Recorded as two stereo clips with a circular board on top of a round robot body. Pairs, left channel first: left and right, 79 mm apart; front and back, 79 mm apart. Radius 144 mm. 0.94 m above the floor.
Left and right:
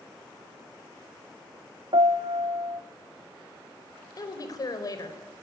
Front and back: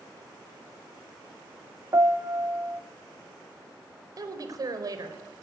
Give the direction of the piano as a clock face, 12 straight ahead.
4 o'clock.